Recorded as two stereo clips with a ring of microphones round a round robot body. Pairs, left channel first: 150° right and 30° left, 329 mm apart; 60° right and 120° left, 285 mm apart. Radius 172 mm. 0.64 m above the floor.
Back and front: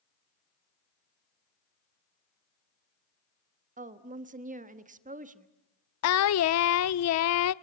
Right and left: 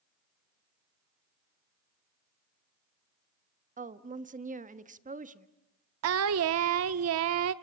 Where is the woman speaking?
80° left, 1.3 m.